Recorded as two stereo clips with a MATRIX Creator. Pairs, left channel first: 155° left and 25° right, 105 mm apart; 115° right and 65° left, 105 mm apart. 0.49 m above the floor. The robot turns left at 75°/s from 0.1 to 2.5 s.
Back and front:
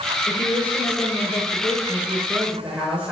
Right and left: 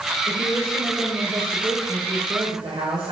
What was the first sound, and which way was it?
A woman speaking, 145° right.